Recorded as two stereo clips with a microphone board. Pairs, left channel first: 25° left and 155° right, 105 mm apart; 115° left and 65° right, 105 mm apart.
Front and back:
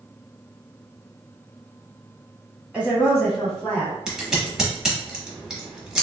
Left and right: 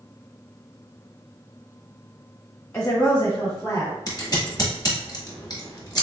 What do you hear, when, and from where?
2.7 s a woman speaking: 145° left, 1.4 m; by 4.0 s 80° left, 1.6 m
4.1 s scissors: 120° left, 0.9 m